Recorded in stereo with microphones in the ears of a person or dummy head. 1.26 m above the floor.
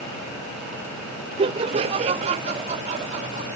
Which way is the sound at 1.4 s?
25° right (ahead or behind).